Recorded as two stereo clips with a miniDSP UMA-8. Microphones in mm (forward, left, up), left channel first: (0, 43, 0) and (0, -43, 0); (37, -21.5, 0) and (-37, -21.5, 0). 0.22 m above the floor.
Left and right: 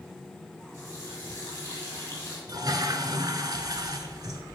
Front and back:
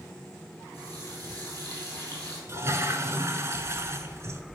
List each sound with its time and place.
0.7 s a running tap: 145° left, 3.5 m
2.5 s a toilet flushing: 125° right, 0.7 m